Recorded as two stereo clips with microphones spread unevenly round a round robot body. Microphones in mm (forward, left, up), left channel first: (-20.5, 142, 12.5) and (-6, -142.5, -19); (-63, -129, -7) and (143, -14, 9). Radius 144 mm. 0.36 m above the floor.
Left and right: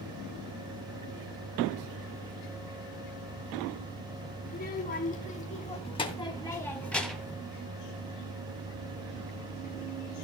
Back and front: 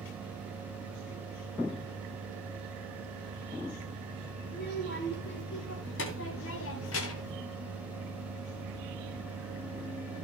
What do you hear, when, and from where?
4.5 s a child speaking: 155° left, 3 m; by 7.4 s 170° right, 2 m